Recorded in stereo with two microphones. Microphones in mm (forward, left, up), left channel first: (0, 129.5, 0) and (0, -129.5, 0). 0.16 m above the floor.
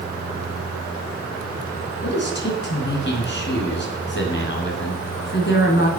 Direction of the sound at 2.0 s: 40° left (ahead or behind).